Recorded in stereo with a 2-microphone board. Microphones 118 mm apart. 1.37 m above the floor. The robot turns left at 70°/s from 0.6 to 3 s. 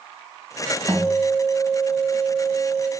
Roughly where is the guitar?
Ahead.